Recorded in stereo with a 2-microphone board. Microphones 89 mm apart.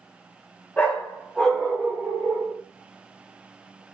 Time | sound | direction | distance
0.8 | a dog barking | 15° left (ahead or behind) | 1.4 m